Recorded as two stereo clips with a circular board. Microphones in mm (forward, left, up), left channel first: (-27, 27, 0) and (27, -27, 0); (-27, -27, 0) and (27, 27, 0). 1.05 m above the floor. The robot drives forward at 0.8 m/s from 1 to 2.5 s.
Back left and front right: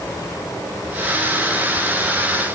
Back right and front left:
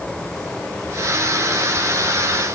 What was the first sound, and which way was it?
Only background noise.